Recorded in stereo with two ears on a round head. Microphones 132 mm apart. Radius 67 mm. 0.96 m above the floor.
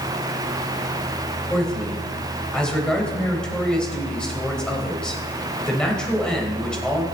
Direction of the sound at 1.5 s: 5° left (ahead or behind).